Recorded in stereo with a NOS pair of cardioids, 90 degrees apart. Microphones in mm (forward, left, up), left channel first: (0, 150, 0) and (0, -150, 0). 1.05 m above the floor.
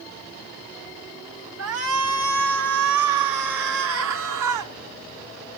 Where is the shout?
60° right, 1.3 m; by 4.7 s 80° right, 3 m.